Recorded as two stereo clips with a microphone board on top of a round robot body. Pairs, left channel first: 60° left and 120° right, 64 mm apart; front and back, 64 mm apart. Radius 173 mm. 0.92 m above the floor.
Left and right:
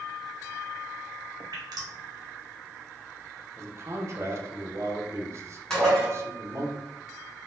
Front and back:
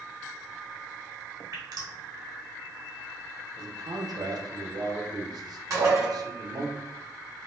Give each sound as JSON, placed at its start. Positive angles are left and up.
{"t": 1.5, "sound": "dripping", "azimuth_deg": -145, "distance_m": 0.8}
{"t": 3.6, "sound": "a man speaking", "azimuth_deg": -165, "distance_m": 0.8}
{"t": 5.7, "sound": "dishes clattering", "azimuth_deg": 140, "distance_m": 1.2}